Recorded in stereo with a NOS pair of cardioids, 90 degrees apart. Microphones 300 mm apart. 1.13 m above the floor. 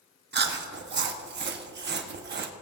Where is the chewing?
35° right, 1.1 m.